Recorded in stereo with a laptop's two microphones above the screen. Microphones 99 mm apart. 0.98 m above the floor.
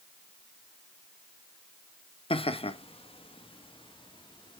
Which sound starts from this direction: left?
Laughter, at 2.3 s.